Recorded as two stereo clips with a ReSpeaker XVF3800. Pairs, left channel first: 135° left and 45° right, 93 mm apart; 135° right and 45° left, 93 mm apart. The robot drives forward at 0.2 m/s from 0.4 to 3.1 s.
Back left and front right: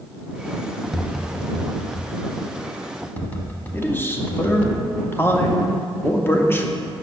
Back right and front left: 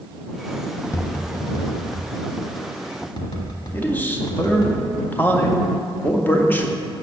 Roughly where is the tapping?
Behind right.